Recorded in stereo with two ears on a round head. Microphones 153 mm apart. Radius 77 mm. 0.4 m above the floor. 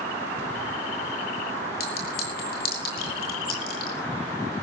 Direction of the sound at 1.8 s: 60° left (ahead or behind).